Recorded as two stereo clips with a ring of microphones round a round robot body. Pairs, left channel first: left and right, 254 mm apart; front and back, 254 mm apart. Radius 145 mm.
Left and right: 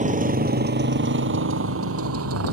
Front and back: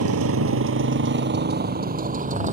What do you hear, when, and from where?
0.0 s a motorcycle: 150° right; by 2.5 s 120° right